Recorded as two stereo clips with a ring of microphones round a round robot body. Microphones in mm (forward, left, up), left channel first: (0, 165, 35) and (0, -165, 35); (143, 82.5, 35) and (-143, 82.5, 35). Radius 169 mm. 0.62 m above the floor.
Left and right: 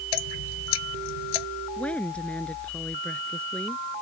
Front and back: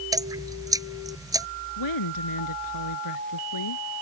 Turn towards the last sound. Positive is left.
turn(degrees=5)